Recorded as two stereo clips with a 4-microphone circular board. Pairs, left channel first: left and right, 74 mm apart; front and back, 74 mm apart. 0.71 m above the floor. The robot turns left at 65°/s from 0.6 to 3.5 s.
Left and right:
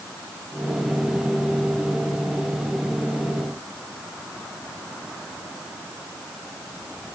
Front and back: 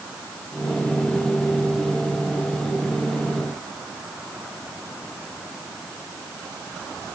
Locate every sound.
Only background noise.